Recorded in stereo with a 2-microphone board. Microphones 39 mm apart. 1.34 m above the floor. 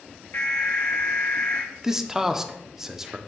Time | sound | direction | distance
0.3 | an alarm | 65° left (ahead or behind) | 2.0 m
1.8 | a man speaking | 10° right (ahead or behind) | 0.6 m